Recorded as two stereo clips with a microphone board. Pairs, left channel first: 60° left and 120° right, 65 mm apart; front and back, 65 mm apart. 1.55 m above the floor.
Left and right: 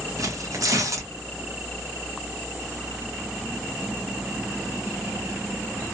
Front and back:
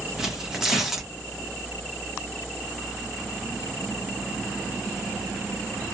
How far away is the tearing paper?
About 1.0 m.